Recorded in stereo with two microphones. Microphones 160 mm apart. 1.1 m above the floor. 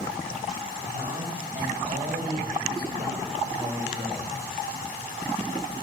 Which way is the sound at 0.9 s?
60° right (ahead or behind).